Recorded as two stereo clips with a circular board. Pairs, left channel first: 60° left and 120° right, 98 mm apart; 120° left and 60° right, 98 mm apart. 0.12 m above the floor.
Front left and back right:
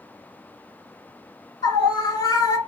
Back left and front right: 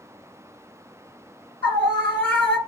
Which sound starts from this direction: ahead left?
A scream, at 1.6 s.